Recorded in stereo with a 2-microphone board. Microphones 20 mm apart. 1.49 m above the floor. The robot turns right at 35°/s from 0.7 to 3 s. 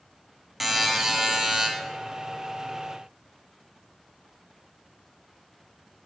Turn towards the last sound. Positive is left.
turn(degrees=-85)